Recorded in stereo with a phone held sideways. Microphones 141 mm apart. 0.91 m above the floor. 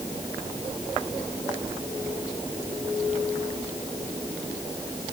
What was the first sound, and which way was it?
Only background noise.